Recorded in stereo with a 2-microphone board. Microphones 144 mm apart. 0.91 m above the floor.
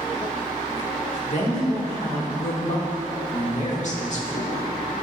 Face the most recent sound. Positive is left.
turn(degrees=55)  # may be behind; listen again after turning